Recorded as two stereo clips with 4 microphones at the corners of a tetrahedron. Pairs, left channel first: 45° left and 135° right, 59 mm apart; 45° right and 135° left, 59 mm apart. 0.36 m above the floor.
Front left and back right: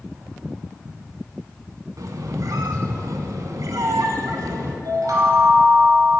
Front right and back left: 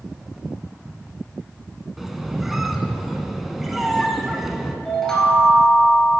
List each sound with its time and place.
2.0 s a squeak: 140° right, 0.7 m
4.8 s a chime: 125° right, 1.4 m